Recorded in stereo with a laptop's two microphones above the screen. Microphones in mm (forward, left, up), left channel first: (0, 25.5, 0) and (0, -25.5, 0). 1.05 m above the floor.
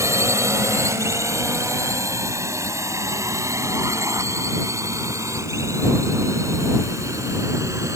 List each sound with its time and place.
0.0 s a drone: 70° right (ahead or behind); by 8.0 s 80° right